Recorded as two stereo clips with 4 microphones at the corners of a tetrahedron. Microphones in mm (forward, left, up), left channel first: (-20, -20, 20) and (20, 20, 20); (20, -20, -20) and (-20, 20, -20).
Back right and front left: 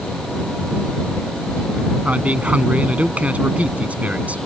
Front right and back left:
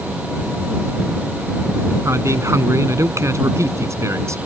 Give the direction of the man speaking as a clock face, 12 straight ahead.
8 o'clock.